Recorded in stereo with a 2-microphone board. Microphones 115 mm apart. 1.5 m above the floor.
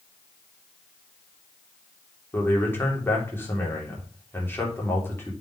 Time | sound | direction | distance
2.3 | a man speaking | 20° left (ahead or behind) | 3 m